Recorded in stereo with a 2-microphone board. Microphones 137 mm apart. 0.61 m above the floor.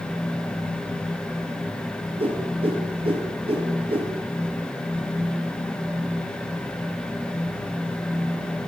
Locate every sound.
2.2 s a whoosh: 45° right (ahead or behind), 2 m